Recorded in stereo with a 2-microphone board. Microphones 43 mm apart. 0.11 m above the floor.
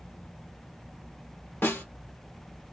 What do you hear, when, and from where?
1.6 s a snare drum: 60° left (ahead or behind), 2 m